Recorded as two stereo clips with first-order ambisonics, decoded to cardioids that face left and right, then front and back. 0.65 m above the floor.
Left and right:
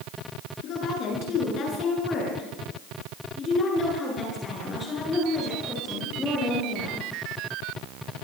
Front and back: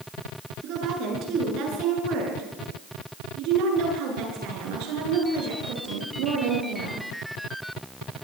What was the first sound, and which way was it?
A woman speaking, 135° left.